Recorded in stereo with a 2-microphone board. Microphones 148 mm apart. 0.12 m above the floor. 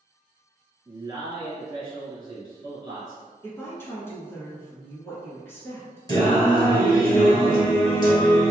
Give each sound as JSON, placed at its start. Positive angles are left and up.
{"t": 0.8, "sound": "a man speaking", "side_deg": -25, "distance_m": 1.9}
{"t": 3.4, "sound": "a woman speaking", "side_deg": 15, "distance_m": 1.3}
{"t": 6.1, "sound": "singing", "side_deg": 25, "distance_m": 1.3}